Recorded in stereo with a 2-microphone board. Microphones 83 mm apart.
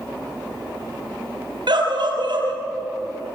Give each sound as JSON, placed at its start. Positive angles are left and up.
{"t": 1.7, "sound": "a scream", "side_deg": -65, "distance_m": 5.5}